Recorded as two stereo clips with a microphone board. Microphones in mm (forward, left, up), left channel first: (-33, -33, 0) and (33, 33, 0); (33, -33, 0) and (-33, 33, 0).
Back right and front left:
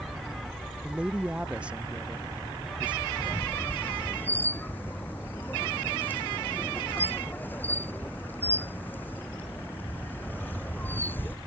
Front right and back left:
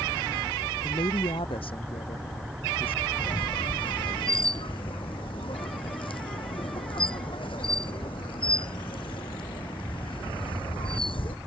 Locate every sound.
0.8 s a woman speaking: 35° right; by 3.1 s 30° right
3.2 s a squeak: 65° right